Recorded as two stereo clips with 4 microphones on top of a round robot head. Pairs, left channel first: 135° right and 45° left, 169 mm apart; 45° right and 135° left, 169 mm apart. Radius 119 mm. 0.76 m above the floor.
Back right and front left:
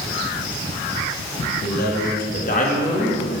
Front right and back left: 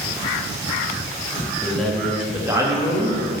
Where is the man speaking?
125° right, 1.9 m; by 3.3 s 175° right, 1.8 m.